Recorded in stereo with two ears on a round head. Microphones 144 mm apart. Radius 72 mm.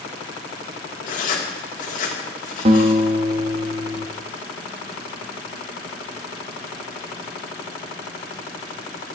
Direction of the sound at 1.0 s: 50° left (ahead or behind).